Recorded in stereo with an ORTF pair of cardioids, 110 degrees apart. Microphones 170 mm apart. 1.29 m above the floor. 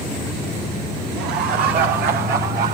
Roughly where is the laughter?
Right.